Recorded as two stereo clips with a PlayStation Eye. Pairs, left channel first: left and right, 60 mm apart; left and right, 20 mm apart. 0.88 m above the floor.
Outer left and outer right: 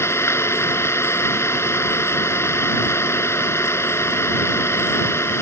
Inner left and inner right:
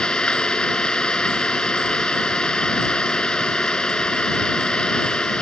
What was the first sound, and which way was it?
An engine running, 50° left (ahead or behind).